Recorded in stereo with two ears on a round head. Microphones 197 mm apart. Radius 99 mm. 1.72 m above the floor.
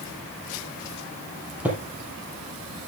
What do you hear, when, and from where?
1.6 s footsteps: 5° right (ahead or behind), 3.5 m